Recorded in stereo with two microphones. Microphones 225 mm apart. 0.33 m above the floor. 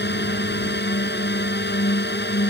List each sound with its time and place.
0.0 s a drone: 55° left (ahead or behind)